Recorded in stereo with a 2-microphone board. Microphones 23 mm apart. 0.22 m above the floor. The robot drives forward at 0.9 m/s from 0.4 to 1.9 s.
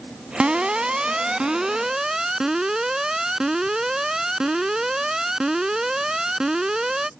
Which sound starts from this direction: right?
An alarm, at 0.4 s.